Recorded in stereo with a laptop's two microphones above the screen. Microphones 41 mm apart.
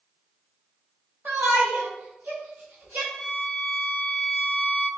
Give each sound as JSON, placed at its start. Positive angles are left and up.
{"t": 1.2, "sound": "a shout", "side_deg": -60, "distance_m": 1.1}
{"t": 3.1, "sound": "a violin", "side_deg": 15, "distance_m": 1.5}